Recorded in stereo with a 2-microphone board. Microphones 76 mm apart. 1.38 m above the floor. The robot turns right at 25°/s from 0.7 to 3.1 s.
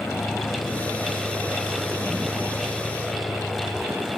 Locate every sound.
0.0 s a vehicle: 140° left; by 4.2 s 160° right